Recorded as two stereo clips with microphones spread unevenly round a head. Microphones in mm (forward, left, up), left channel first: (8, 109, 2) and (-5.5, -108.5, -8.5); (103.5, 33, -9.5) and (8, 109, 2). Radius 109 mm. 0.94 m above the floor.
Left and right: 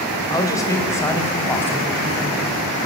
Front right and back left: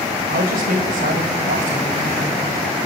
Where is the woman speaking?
160° left, 4.5 m; by 2.5 s 170° left, 6.5 m.